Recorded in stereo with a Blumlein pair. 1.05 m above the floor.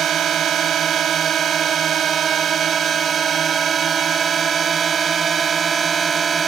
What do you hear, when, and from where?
0.0 s a drone: 25° right; by 6.5 s 20° right